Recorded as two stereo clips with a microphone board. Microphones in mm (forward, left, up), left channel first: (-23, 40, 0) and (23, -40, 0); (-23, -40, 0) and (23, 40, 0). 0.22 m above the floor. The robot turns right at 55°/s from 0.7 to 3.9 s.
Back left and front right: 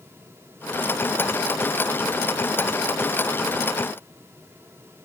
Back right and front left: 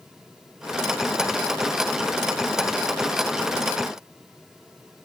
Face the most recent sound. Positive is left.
No sound to turn to.